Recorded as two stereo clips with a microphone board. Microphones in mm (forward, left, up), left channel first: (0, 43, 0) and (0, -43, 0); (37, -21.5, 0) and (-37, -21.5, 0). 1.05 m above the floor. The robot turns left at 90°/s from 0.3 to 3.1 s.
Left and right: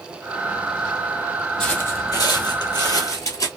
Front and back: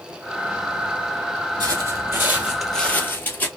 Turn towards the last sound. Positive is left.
turn(degrees=60)